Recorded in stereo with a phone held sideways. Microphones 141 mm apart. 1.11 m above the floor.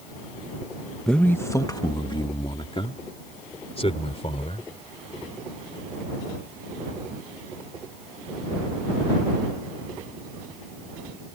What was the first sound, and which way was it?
A man speaking, 5° left (ahead or behind).